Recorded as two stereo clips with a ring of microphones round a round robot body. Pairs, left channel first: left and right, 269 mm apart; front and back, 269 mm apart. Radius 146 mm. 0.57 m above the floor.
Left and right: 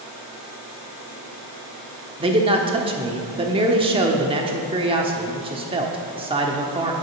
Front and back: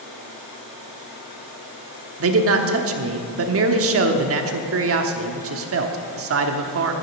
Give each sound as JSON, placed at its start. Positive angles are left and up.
{"t": 2.2, "sound": "a man speaking", "azimuth_deg": -160, "distance_m": 1.0}